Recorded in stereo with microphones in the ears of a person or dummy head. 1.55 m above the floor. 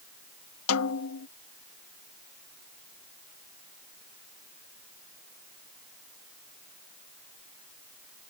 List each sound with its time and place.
0.7 s a snare drum: 80° left